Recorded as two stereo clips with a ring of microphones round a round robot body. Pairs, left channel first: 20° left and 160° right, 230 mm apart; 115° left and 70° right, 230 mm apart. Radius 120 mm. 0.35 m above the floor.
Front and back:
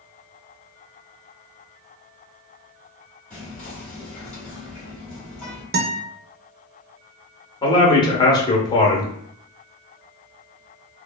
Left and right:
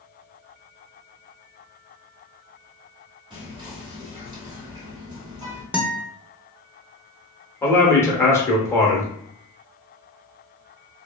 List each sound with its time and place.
3.3 s whispering: 50° right, 1.5 m
5.7 s a guitar: 150° right, 0.6 m
7.6 s a man speaking: 55° left, 0.8 m